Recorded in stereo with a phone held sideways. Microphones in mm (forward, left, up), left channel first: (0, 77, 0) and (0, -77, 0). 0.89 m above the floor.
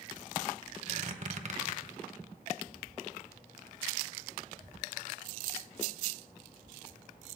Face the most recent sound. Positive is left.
turn(degrees=-50)  # may be behind; listen again after turning